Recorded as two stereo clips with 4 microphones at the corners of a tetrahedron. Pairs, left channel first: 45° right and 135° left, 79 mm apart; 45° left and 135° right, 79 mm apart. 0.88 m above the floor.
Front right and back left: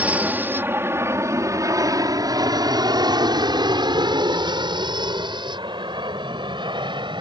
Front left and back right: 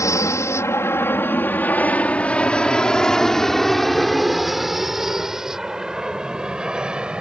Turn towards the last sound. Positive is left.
turn(degrees=145)